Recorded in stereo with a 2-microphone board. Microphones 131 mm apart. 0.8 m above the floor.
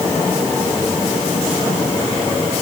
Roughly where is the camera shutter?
I don't hear a camera shutter.